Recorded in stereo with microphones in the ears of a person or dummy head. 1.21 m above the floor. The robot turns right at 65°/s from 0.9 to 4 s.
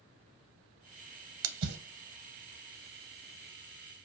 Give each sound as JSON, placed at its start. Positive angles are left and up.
{"t": 1.4, "sound": "a splash", "side_deg": -75, "distance_m": 0.6}